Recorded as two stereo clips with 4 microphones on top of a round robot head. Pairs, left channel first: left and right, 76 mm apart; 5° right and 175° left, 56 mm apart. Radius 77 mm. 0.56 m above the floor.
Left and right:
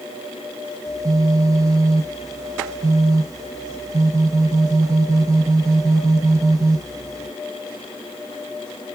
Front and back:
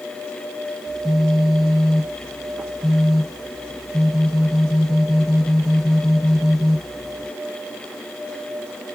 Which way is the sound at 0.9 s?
95° right.